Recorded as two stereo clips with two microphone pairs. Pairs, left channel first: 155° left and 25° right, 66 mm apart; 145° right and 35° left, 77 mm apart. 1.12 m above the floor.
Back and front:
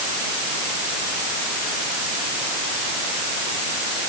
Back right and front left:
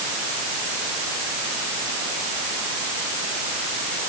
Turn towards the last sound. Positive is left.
No sound to turn to.